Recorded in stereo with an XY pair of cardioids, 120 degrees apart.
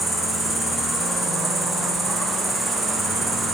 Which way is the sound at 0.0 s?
15° right.